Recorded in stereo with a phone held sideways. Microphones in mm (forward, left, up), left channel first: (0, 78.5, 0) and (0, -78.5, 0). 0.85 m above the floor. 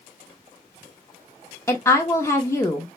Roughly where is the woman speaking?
Centre.